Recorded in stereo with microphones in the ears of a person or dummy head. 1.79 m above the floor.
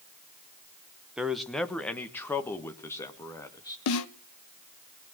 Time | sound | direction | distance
1.2 | a man speaking | 5° right (ahead or behind) | 1.1 m
3.9 | a snare drum | 85° left | 1.1 m